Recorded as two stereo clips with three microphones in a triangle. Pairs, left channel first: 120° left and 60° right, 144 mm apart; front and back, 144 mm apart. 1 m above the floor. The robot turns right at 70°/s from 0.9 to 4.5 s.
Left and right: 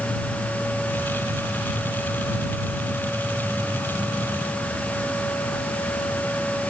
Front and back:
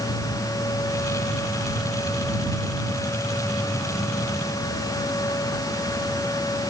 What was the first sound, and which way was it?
Only background noise.